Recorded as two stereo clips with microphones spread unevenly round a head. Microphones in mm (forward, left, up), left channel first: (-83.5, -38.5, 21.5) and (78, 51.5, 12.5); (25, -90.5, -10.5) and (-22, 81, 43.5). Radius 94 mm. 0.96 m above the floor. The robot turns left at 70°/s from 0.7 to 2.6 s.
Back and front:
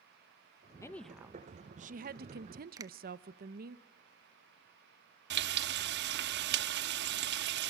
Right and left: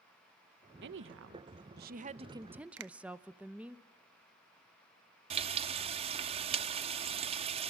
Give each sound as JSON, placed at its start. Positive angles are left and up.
{"t": 0.8, "sound": "a woman speaking", "azimuth_deg": 135, "distance_m": 0.9}
{"t": 2.8, "sound": "a finger snap", "azimuth_deg": 90, "distance_m": 0.9}
{"t": 5.3, "sound": "frying", "azimuth_deg": 60, "distance_m": 0.7}